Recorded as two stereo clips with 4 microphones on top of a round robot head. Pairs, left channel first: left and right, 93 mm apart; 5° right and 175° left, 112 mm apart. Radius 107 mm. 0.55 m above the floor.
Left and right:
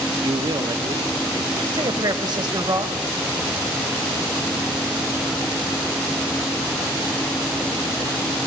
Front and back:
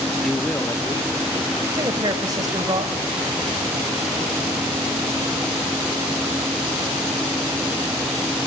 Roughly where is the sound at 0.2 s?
Right.